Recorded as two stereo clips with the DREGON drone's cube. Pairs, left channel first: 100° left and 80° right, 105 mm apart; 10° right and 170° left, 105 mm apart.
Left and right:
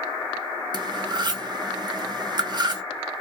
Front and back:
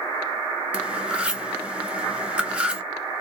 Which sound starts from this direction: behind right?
Cutlery clinking, at 0.7 s.